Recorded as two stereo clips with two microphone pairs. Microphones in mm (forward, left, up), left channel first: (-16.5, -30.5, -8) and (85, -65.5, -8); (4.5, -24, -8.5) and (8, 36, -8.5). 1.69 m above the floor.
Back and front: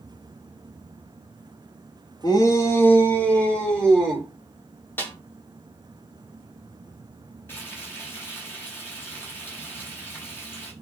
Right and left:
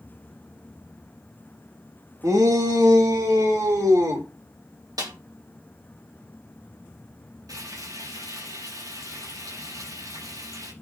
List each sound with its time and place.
2.2 s a shout: 110° left, 1.9 m; by 4.3 s 75° left, 4.5 m
5.0 s a snare drum: 85° left, 2.5 m
7.5 s frying: 90° left, 7 m